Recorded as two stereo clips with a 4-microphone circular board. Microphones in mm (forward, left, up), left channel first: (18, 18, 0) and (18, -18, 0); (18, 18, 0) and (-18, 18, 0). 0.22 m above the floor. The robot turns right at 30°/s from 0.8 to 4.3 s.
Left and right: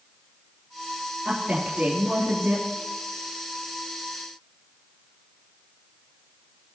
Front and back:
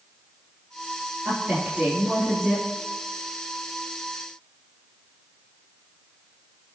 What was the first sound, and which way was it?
A woman speaking, 140° right.